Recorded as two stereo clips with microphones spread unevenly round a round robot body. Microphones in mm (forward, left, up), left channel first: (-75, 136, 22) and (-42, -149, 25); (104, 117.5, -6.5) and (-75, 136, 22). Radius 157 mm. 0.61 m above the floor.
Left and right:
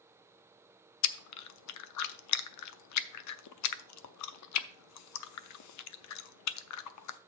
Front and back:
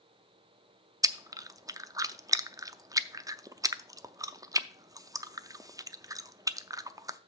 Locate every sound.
1.0 s chewing: 95° left, 0.6 m